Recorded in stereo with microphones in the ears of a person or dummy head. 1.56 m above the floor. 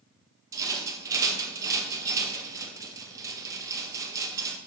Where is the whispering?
No whispering in this recording.